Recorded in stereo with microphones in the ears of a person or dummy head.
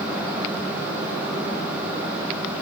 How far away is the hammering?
I don't hear hammering.